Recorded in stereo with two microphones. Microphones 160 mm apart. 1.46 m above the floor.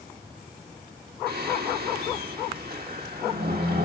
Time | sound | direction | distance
1.3 | singing | 80° right | 2.5 m